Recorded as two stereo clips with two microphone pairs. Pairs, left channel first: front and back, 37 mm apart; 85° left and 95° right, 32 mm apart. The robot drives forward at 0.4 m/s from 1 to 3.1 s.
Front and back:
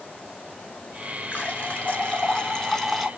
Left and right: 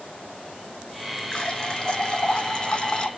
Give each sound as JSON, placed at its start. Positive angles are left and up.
{"t": 1.3, "sound": "a running tap", "azimuth_deg": 20, "distance_m": 1.1}